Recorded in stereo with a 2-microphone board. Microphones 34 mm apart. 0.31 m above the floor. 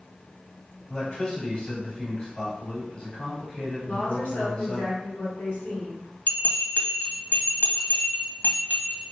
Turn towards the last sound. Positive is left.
turn(degrees=60)  # may be behind; listen again after turning